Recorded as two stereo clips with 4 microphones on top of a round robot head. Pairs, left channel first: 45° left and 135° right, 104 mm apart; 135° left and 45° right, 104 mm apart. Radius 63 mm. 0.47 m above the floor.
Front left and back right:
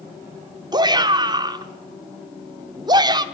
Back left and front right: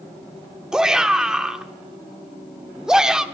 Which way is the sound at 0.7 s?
125° right.